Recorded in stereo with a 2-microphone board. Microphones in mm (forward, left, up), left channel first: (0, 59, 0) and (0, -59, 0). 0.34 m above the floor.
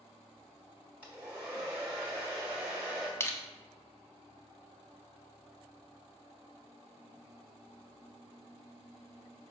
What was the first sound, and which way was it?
A hair dryer, 10° right (ahead or behind).